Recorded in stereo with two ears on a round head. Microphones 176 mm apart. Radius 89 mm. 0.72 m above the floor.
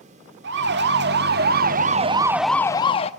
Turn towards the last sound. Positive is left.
turn(degrees=30)  # may be behind; listen again after turning